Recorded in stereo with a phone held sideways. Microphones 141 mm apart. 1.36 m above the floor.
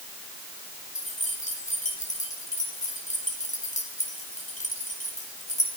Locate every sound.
0.9 s keys jangling: 55° left (ahead or behind), 4 m